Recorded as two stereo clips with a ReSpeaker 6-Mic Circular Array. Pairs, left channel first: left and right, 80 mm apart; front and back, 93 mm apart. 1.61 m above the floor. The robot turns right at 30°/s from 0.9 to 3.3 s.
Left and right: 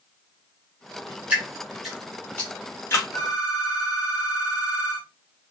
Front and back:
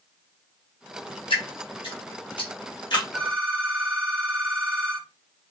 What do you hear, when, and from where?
1.3 s dripping: 15° right, 1.2 m; by 3.0 s 35° left, 1.2 m
3.1 s a phone ringing: 75° left, 0.8 m; by 5.1 s 80° left, 0.8 m